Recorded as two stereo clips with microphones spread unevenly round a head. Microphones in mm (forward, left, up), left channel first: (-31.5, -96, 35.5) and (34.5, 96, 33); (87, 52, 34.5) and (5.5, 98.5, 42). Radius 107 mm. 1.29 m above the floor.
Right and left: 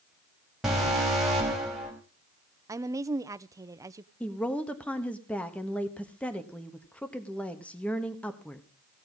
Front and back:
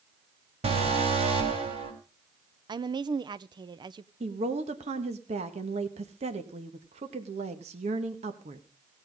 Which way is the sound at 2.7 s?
140° left.